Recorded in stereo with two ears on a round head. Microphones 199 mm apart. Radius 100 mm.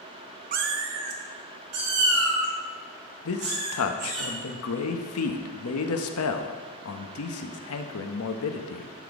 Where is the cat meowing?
40° right (ahead or behind), 0.5 m; by 4.2 s 70° right (ahead or behind), 5 m.